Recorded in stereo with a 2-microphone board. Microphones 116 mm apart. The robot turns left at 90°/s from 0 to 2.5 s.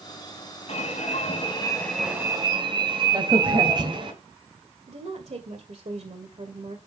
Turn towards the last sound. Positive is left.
turn(degrees=-65)  # may be behind; listen again after turning